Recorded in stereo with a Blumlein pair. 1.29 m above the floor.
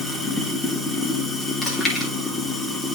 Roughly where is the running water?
Ahead.